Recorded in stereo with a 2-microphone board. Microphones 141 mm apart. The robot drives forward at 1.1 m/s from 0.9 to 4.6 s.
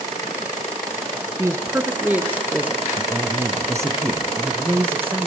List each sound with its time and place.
1.4 s a woman speaking: 20° right (ahead or behind), 1.1 m; by 2.8 s 10° right (ahead or behind), 2 m
3.0 s a woman speaking: 30° right (ahead or behind), 1.4 m; by 5.3 s 15° right (ahead or behind), 2.5 m